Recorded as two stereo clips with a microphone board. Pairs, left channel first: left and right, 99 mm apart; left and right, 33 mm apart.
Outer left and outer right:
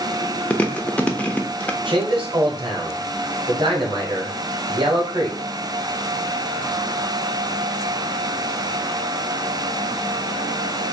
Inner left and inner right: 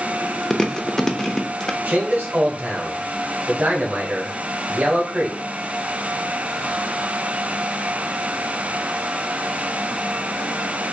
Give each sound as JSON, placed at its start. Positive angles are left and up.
{"t": 0.5, "sound": "chewing", "side_deg": 15, "distance_m": 0.6}
{"t": 1.9, "sound": "a man speaking", "side_deg": -55, "distance_m": 1.8}